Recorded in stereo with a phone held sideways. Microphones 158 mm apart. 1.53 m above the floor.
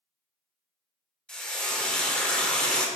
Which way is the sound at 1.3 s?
5° left (ahead or behind).